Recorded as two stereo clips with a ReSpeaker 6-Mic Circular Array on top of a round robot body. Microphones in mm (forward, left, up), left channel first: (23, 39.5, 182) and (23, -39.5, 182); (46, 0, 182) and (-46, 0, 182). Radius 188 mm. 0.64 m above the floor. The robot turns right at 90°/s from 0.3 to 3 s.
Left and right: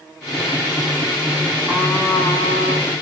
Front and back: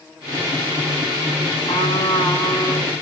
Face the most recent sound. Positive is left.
turn(degrees=125)